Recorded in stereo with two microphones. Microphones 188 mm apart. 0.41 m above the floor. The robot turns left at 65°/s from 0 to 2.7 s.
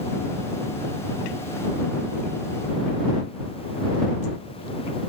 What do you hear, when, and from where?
Only background noise.